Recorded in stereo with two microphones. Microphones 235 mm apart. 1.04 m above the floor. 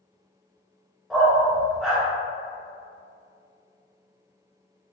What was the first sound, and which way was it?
A dog barking, centre (ahead or behind).